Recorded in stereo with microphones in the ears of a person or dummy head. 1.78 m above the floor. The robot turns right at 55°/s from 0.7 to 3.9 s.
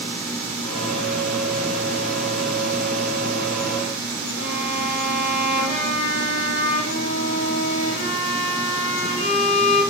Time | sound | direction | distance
4.4 | a violin | 70° left (ahead or behind) | 7 m